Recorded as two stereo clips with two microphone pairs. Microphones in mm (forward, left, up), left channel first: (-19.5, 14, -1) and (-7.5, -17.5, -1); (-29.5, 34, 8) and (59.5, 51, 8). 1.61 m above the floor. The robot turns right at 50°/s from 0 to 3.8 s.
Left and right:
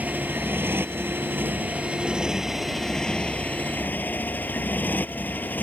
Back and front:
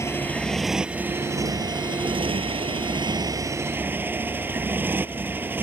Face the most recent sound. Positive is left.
turn(degrees=80)